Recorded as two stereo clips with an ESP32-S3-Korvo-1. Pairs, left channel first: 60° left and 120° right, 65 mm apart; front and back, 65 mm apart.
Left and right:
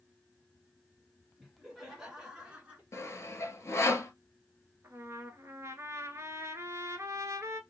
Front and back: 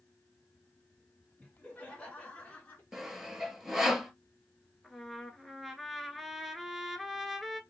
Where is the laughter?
35° right, 1.3 m; by 2.8 s 60° right, 1.7 m.